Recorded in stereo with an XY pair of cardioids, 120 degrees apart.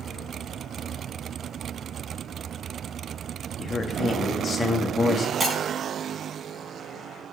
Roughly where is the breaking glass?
Ahead right.